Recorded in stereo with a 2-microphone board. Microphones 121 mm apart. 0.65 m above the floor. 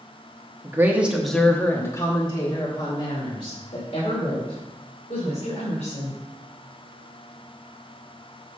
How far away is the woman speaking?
About 1.2 m.